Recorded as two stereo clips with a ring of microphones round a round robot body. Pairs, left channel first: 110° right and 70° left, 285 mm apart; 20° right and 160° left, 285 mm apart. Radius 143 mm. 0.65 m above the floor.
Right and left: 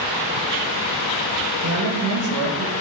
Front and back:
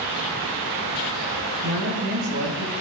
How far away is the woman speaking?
About 2.5 m.